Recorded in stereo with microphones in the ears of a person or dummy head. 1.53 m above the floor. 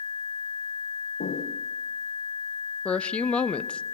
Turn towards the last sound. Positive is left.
turn(degrees=10)  # may be behind; listen again after turning